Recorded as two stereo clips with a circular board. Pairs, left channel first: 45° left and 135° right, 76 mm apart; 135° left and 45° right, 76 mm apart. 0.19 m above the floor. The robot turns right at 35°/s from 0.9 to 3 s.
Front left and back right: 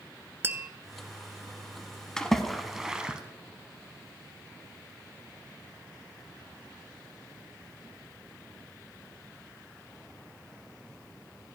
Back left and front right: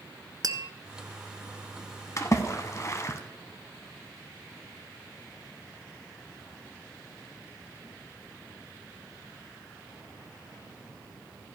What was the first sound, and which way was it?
Tapping, 75° right.